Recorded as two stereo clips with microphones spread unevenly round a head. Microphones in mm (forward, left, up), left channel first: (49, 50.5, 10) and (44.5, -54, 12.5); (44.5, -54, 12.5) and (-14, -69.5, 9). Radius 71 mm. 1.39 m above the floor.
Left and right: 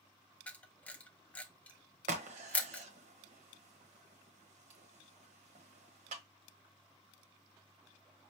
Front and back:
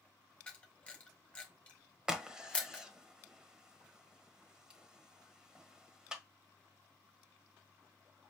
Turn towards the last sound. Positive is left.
turn(degrees=-90)